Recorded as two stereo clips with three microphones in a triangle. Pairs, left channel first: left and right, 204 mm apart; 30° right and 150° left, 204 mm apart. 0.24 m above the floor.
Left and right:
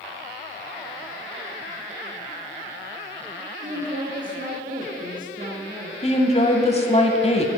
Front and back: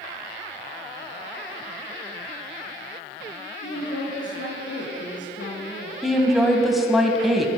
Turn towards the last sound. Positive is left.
turn(degrees=60)